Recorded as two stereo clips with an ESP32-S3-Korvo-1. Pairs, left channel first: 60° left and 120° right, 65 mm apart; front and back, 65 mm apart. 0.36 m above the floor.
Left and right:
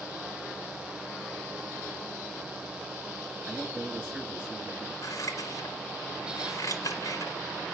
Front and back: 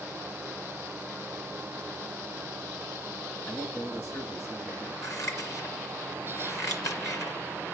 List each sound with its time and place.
3.5 s a man speaking: 45° right, 7 m
5.0 s scissors: 30° left, 2.5 m